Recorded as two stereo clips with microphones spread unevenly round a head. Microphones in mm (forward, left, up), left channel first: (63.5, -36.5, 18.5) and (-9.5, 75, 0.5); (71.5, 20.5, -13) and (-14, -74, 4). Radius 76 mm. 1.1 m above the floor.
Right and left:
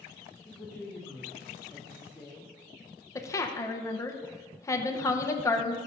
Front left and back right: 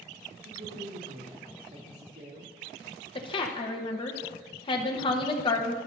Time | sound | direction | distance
0.5 | a woman speaking | 150° right | 2.5 m
3.1 | a woman speaking | 15° left | 1.0 m